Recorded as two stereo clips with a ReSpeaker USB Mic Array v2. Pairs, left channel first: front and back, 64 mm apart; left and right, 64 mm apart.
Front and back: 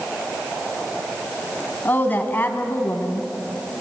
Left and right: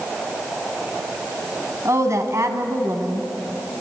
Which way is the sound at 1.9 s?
55° right.